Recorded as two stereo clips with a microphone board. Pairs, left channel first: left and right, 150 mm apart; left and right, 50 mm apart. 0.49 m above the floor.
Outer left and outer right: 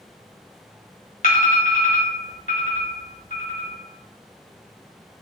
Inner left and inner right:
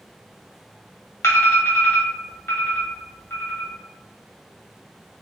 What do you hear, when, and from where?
1.2 s an alarm: 70° left (ahead or behind), 1.6 m